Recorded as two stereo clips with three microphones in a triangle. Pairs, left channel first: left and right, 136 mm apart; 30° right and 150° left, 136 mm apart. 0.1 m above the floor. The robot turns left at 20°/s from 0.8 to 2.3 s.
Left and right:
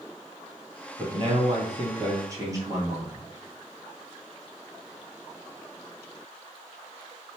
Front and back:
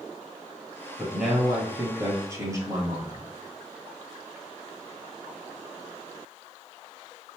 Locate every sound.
1.0 s a man speaking: 120° right, 2 m; by 3.3 s 150° right, 2 m